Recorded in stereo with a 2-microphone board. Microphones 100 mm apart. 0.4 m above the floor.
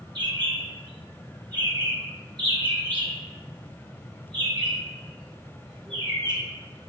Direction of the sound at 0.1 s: 50° right (ahead or behind).